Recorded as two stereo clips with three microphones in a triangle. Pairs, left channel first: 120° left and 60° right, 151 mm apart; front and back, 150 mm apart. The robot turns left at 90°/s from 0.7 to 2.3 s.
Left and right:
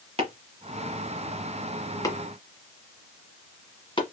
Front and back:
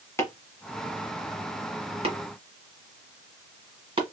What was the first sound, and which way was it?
Chopping, 60° right.